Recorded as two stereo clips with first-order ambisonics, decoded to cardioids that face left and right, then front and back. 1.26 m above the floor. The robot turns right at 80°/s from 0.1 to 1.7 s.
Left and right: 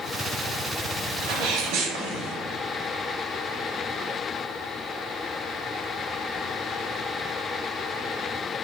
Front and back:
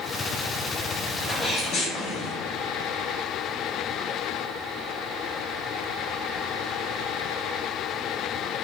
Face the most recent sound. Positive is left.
turn(degrees=-50)